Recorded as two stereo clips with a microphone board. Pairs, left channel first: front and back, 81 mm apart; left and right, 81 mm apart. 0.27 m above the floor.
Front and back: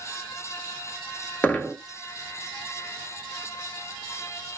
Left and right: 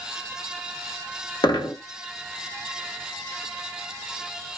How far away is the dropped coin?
About 0.9 m.